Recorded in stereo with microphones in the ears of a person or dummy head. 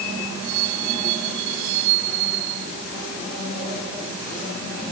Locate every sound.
Only background noise.